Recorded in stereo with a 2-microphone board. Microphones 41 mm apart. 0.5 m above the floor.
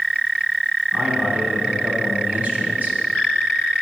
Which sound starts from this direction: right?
A man speaking, at 0.9 s.